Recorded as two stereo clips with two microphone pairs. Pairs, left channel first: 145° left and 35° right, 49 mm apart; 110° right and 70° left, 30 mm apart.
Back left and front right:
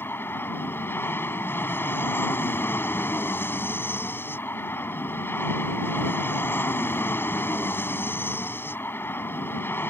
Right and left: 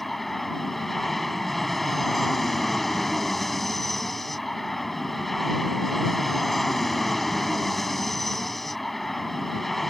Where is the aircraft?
165° left.